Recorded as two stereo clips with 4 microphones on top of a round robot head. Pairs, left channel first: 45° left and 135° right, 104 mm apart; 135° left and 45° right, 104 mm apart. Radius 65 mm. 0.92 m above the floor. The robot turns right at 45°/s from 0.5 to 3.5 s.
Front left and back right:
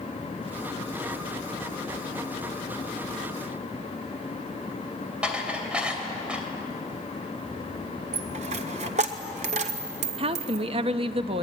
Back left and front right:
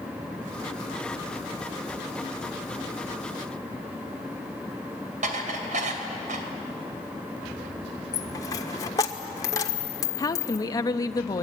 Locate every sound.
5.2 s dishes clattering: 55° right, 3 m
8.1 s a dropped coin: 165° right, 1.3 m
10.2 s a woman speaking: 165° right, 1.0 m